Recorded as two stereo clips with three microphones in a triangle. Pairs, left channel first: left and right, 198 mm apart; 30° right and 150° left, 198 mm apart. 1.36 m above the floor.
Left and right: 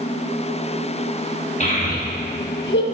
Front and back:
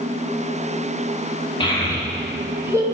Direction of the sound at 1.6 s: 35° left.